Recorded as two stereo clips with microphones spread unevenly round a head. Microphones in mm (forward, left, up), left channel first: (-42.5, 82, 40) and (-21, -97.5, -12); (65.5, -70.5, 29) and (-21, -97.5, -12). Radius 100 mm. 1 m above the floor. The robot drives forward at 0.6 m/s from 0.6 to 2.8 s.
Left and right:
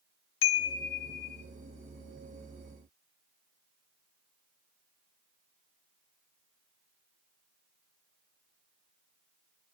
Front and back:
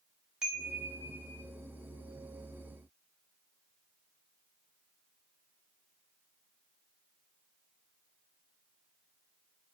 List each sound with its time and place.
0.4 s a chime: 115° left, 0.8 m; by 1.4 s 140° left, 1.1 m